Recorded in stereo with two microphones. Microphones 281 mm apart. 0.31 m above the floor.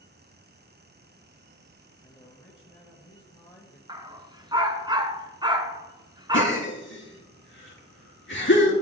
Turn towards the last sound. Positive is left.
turn(degrees=45)  # may be behind; listen again after turning